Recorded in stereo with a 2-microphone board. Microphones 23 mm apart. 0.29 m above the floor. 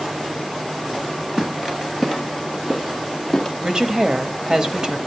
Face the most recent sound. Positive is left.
turn(degrees=-30)  # may be behind; listen again after turning